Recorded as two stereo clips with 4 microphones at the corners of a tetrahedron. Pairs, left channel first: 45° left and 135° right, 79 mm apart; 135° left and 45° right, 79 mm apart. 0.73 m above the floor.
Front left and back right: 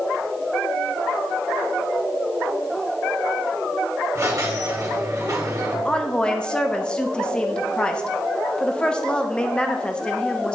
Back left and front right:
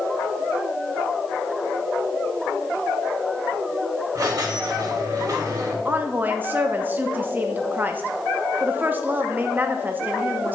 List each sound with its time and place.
4.2 s a squeak: 85° right, 1.2 m
5.8 s a woman speaking: 20° right, 0.7 m